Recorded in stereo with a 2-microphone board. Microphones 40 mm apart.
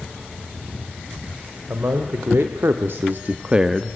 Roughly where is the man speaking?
Right.